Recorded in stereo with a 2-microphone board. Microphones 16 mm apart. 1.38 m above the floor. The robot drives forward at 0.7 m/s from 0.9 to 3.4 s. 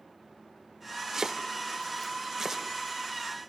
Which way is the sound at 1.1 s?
35° right (ahead or behind).